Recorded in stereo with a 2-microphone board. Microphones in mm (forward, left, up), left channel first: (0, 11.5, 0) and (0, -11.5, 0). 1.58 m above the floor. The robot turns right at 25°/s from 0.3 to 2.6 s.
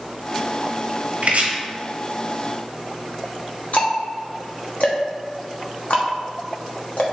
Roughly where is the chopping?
Right.